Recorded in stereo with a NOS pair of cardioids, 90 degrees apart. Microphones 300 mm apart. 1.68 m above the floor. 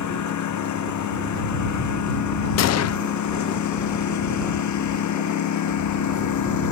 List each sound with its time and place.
0.0 s a lawn mower: 65° left
2.6 s a gunshot: 55° left